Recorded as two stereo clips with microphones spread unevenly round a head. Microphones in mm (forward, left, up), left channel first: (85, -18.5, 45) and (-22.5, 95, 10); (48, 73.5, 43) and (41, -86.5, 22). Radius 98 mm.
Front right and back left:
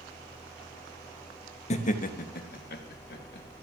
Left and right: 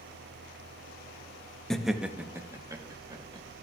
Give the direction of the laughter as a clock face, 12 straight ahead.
12 o'clock.